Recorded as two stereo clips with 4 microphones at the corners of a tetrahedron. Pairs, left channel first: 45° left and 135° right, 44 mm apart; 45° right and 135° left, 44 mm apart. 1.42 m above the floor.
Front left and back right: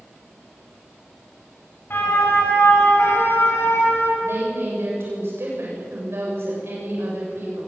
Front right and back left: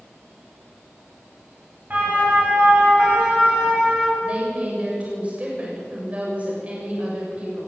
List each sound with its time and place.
1.9 s a siren: 85° left, 9 m; by 4.1 s 70° left, 9.5 m
4.2 s a woman speaking: 165° right, 7.5 m